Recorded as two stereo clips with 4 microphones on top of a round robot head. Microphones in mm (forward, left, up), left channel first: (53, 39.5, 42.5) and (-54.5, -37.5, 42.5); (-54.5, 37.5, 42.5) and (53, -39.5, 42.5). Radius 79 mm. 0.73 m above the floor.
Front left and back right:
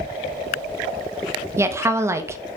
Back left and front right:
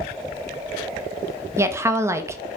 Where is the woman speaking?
90° right, 0.5 m.